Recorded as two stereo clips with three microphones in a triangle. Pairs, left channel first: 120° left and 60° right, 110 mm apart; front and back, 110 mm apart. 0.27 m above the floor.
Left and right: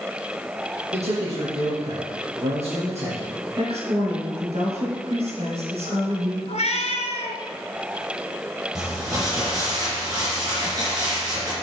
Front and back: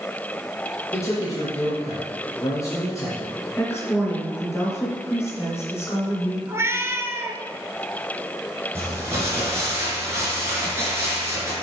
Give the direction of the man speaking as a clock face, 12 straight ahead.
2 o'clock.